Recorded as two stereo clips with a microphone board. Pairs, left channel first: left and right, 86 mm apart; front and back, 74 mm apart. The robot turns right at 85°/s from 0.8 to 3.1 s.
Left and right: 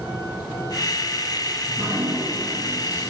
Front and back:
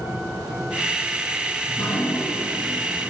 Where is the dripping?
65° right, 5 m; by 3.1 s 60° left, 5 m.